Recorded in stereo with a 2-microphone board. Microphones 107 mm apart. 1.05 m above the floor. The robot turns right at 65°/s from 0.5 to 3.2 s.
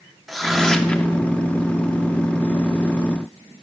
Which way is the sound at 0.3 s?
Centre (ahead or behind).